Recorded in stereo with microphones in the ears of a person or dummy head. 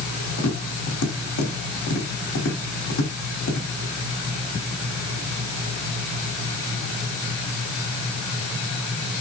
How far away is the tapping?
About 3 m.